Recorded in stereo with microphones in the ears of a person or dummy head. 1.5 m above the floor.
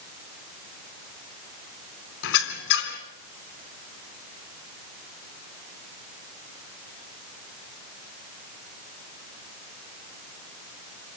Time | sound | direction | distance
2.2 | a squeak | 70° left (ahead or behind) | 3.5 m